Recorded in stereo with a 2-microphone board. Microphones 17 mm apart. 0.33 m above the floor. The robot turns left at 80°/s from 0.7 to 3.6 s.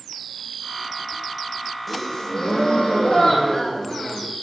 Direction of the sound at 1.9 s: 175° left.